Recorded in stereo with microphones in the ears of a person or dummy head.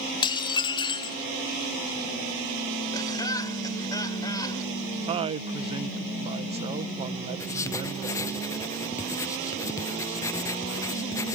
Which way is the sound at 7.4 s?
15° left (ahead or behind).